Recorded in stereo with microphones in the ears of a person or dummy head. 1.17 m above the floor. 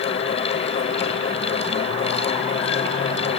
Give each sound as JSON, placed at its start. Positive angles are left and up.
{"t": 0.0, "sound": "a fan", "side_deg": 35}